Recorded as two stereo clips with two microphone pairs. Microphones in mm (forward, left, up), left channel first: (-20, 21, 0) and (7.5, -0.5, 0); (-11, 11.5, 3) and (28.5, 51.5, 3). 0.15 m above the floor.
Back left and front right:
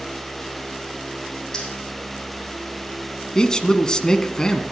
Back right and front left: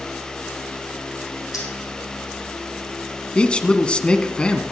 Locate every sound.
1.5 s keys jangling: 145° right, 5.5 m
3.4 s a man speaking: 175° left, 1.2 m